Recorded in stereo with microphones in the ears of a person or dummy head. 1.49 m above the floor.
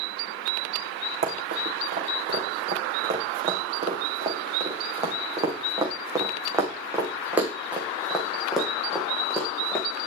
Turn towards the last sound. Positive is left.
turn(degrees=5)  # may be behind; listen again after turning